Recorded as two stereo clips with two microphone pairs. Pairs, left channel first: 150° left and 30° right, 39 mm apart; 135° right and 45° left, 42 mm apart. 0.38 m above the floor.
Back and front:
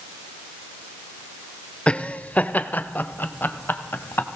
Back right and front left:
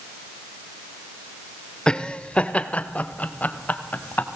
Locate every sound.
1.9 s laughter: 175° left, 1.1 m